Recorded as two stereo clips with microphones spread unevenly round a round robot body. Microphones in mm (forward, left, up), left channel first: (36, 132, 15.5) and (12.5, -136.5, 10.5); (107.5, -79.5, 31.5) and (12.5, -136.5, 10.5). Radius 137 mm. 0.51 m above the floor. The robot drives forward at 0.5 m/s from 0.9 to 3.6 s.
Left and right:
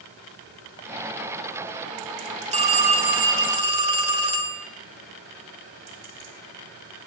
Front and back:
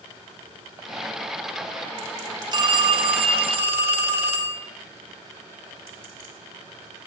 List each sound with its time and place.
2.5 s a phone ringing: 150° right, 0.7 m; by 4.7 s 165° right, 1.1 m